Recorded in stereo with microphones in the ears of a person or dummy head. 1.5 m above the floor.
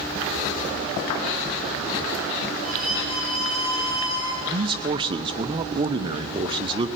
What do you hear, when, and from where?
2.6 s a violin: 50° left (ahead or behind), 4.5 m
4.5 s a man speaking: 20° right (ahead or behind), 0.7 m